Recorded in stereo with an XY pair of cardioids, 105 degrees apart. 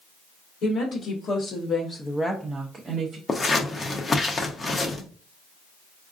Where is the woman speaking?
65° left, 1.4 m; by 3.2 s 55° right, 0.8 m.